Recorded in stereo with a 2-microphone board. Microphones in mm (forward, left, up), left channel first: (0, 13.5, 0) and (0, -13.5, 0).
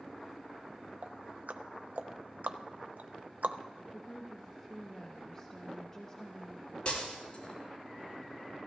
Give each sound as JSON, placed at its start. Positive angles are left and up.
{"t": 1.0, "sound": "ticking", "side_deg": -70, "distance_m": 0.5}
{"t": 3.9, "sound": "a woman speaking", "side_deg": 20, "distance_m": 0.9}
{"t": 6.8, "sound": "breaking glass", "side_deg": 40, "distance_m": 5.0}